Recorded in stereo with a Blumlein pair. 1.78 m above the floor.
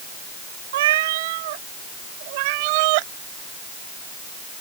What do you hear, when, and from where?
0.7 s a cat meowing: 55° right; by 3.1 s 45° right